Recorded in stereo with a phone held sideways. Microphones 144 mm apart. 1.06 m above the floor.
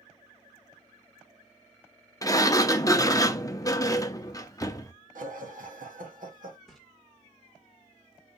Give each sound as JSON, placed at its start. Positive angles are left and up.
{"t": 2.2, "sound": "a sliding door", "side_deg": 25, "distance_m": 0.6}
{"t": 5.2, "sound": "laughter", "side_deg": -75, "distance_m": 1.8}
{"t": 6.7, "sound": "a splash", "side_deg": 0, "distance_m": 1.4}